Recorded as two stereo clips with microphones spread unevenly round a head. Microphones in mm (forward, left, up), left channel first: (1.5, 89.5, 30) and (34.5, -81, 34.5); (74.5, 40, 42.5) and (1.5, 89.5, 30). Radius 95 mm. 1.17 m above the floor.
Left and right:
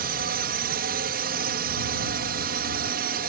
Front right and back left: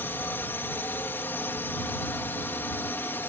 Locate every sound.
0.0 s a drone: 110° right